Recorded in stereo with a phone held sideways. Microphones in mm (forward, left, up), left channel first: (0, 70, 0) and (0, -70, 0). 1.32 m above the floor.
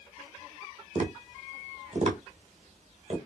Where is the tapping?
55° right (ahead or behind), 1.7 m.